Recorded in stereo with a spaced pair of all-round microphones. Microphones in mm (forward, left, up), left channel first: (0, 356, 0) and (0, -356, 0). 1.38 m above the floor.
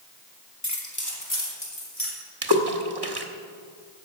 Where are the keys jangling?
20° left (ahead or behind), 1.6 m; by 2.1 s 30° left (ahead or behind), 3.5 m.